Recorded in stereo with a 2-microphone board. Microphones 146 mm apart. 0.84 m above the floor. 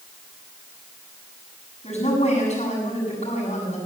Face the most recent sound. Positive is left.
turn(degrees=50)  # may be behind; listen again after turning